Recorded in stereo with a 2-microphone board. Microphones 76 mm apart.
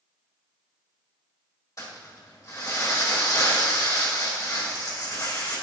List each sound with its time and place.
1.8 s crumpling: 45° left (ahead or behind), 3 m